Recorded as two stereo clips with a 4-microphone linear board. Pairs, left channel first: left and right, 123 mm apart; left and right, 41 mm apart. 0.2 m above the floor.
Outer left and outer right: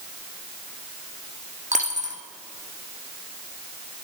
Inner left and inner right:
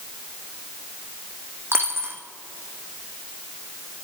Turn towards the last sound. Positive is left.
turn(degrees=-80)